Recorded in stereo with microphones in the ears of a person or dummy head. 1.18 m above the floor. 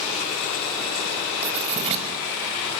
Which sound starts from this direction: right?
Writing, at 1.4 s.